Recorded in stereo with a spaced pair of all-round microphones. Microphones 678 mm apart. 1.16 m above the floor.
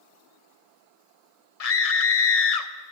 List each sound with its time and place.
1.6 s a scream: 60° left (ahead or behind), 0.9 m